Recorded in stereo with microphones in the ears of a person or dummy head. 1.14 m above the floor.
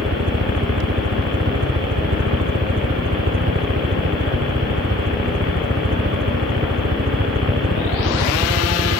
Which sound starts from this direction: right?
A helicopter, at 0.0 s.